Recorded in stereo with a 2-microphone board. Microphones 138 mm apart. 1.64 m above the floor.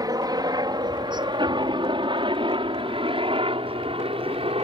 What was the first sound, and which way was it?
A helicopter, 25° right (ahead or behind).